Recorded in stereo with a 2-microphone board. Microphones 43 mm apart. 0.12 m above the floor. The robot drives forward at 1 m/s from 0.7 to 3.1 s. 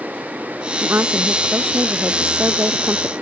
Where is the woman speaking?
65° right (ahead or behind); by 3.1 s 70° right (ahead or behind).